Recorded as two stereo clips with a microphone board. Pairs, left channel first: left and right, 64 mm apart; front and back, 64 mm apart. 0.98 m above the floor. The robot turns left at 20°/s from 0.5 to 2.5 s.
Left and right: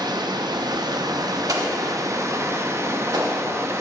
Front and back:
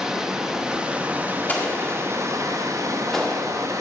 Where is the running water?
95° right, 0.7 m; by 3.8 s 135° right, 0.7 m.